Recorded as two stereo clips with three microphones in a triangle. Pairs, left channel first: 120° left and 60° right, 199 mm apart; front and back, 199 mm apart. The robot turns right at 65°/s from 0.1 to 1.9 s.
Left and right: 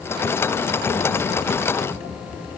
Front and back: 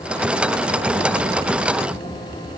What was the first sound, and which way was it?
Only background noise.